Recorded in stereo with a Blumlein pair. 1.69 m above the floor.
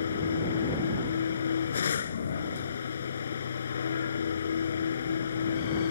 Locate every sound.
0.0 s a machine running: 65° left